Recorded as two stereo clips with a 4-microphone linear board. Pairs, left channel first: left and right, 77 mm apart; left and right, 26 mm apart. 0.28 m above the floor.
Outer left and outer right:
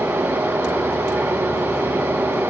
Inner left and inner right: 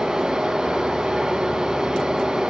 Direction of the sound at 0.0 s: 25° right (ahead or behind).